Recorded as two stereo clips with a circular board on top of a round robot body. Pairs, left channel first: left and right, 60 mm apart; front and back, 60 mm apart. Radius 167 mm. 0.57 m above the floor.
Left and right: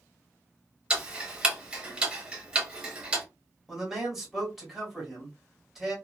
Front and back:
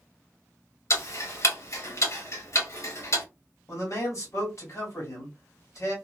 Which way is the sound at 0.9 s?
20° right.